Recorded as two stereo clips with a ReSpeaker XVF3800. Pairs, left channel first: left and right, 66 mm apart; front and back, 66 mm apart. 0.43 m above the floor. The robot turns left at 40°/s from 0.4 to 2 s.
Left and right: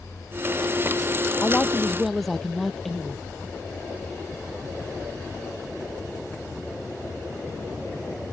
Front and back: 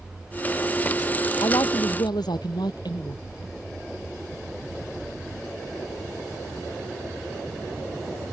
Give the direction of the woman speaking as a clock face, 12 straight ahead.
11 o'clock.